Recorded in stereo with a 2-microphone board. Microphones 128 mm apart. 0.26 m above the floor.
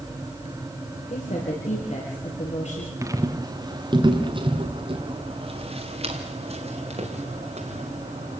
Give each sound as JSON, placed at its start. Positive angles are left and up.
{"t": 1.1, "sound": "a woman speaking", "side_deg": 60, "distance_m": 6.5}
{"t": 3.0, "sound": "footsteps", "side_deg": -25, "distance_m": 2.0}